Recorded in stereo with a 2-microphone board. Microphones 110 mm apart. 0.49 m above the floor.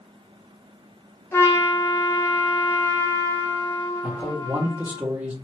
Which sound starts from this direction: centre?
A man speaking, at 4.0 s.